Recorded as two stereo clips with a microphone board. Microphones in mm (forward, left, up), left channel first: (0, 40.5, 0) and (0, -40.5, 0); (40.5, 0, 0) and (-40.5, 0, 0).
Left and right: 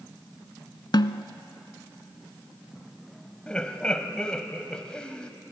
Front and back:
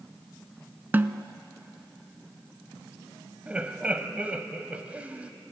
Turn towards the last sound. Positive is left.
turn(degrees=145)